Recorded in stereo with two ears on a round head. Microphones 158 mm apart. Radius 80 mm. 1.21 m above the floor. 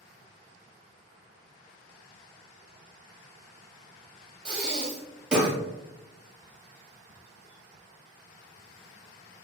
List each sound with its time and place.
4.5 s breathing: 5° right (ahead or behind), 0.7 m